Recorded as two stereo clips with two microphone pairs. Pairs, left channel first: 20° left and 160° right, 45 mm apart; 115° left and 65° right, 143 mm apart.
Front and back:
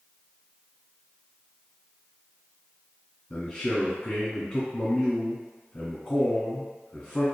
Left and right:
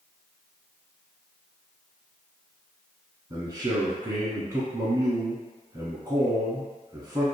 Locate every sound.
3.3 s a man speaking: 30° right, 1.1 m